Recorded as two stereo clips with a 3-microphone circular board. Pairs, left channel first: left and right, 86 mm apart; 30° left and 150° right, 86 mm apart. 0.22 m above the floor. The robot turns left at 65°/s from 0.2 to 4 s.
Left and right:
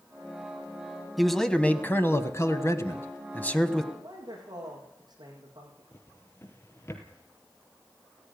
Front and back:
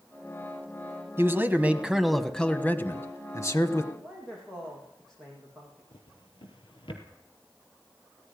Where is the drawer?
30° left, 3.5 m.